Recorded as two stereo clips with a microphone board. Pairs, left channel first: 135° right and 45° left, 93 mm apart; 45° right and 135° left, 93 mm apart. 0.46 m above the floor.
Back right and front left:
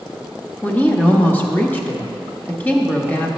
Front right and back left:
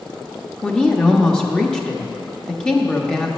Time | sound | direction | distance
0.6 | a woman speaking | 110° right | 0.7 m